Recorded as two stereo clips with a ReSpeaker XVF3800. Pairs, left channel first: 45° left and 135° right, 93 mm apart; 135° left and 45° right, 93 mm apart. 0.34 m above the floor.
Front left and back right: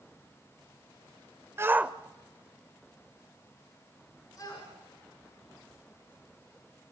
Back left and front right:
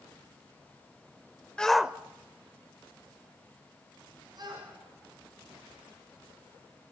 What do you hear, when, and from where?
1.6 s a shout: 155° right, 1.0 m; by 6.9 s 5° right, 7 m